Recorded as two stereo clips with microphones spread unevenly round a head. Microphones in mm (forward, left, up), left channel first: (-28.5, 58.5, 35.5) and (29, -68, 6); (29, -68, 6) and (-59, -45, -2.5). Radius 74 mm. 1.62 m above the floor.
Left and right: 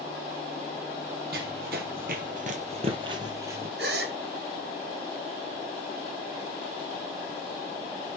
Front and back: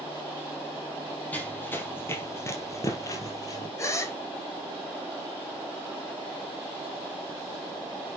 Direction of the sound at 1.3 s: 80° right.